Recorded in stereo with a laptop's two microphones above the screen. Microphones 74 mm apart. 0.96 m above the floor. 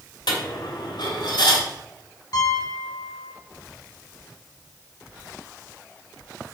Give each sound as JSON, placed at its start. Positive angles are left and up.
{"t": 0.3, "sound": "a dropped coin", "side_deg": 85, "distance_m": 2.0}
{"t": 2.3, "sound": "a piano", "side_deg": 50, "distance_m": 3.0}